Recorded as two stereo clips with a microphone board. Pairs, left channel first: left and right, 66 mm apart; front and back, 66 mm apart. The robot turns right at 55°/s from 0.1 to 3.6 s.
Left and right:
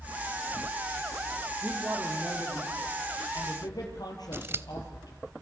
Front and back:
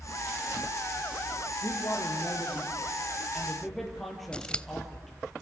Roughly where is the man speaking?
Ahead.